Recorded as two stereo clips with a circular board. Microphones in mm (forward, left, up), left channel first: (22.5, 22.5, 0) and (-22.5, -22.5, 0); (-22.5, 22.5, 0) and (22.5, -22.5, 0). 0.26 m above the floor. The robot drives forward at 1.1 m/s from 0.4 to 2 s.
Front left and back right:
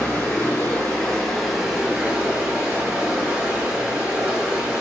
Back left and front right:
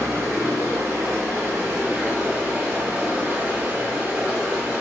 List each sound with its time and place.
0.0 s running water: 20° right, 2 m; by 4.8 s 90° right, 1.1 m